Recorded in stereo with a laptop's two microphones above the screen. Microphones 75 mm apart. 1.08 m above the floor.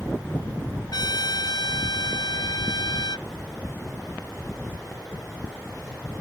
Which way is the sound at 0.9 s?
70° left (ahead or behind).